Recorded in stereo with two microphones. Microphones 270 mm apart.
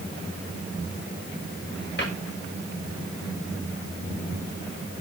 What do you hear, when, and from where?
2.0 s a cupboard door: 40° left (ahead or behind), 7 m